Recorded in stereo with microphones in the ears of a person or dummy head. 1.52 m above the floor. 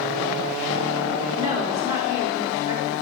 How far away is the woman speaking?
About 5 m.